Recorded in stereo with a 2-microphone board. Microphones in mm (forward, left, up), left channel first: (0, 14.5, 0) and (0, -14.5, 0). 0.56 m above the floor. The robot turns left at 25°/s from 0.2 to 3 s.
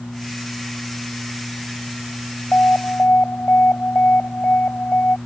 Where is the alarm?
60° left (ahead or behind); by 5.2 s 70° left (ahead or behind).